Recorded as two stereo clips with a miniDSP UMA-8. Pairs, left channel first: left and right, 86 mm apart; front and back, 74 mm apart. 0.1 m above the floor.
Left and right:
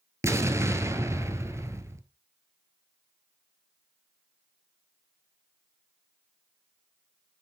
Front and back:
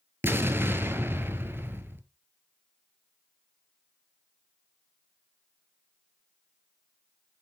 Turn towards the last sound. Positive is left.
turn(degrees=-130)